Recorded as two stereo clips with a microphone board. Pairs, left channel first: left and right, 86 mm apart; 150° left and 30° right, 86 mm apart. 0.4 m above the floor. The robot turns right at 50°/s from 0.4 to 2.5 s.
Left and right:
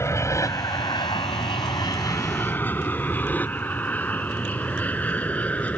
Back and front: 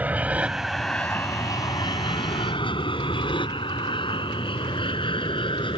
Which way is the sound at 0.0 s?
40° left.